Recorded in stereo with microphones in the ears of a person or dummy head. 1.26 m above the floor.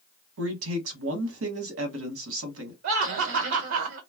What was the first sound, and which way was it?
A man speaking, 80° right.